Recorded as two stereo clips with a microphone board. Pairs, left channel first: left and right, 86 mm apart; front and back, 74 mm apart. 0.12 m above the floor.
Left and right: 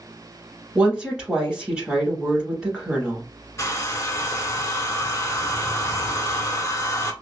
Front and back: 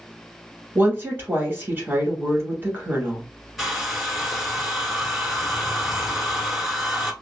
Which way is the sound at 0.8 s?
160° right.